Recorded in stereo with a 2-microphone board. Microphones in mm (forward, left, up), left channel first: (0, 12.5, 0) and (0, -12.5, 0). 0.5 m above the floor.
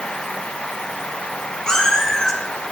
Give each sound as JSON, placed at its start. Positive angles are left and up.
{"t": 1.7, "sound": "a cat meowing", "side_deg": 25, "distance_m": 3.0}